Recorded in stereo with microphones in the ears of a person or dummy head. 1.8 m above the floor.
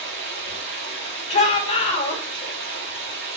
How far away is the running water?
About 2.5 m.